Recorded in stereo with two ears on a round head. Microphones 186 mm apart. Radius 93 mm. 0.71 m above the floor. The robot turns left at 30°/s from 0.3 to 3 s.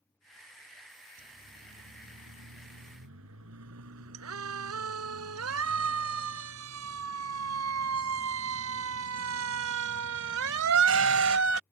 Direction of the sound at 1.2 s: 45° right (ahead or behind).